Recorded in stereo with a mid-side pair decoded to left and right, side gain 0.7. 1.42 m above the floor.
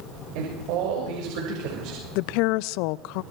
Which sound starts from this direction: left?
A woman speaking, at 2.1 s.